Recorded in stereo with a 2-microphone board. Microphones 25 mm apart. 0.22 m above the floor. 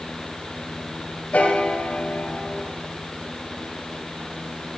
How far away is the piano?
About 3 m.